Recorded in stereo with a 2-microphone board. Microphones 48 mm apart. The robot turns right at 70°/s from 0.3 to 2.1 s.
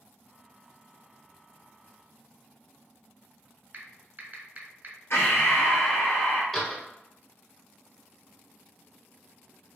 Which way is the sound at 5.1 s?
60° left (ahead or behind).